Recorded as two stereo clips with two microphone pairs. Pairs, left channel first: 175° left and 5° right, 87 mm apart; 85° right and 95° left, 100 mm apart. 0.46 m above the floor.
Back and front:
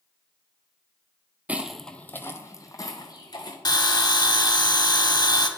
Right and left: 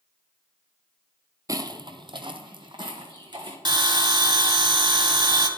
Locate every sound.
1.5 s footsteps: 60° left, 0.5 m; by 3.5 s 135° left, 1.7 m
3.6 s a bell: 135° left, 0.7 m